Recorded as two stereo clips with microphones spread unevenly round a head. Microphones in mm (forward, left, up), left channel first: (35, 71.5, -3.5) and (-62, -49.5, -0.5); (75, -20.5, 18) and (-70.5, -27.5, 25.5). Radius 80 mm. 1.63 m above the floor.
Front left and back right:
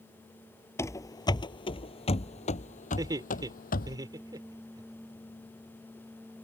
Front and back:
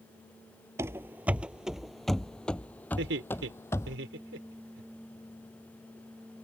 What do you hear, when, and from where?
0.8 s running footsteps: 120° left; by 4.0 s 80° left
3.0 s laughter: 165° left